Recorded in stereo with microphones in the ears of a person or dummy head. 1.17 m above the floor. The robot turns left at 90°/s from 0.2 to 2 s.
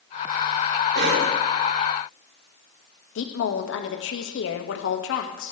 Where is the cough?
55° right, 2.5 m; by 1.3 s 90° right, 2.5 m.